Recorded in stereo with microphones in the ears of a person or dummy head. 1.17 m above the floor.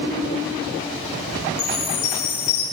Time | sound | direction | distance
1.6 | a chime | 40° left (ahead or behind) | 9 m